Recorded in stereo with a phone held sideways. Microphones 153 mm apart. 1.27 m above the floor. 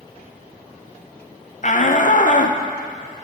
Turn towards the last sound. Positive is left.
turn(degrees=55)  # may be behind; listen again after turning